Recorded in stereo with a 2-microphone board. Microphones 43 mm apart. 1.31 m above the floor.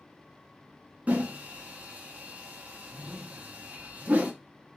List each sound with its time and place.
1.1 s a whoosh: 35° right (ahead or behind), 0.8 m